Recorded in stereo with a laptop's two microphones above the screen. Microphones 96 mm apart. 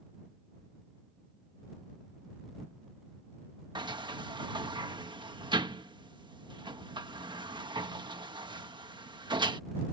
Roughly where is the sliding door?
Right.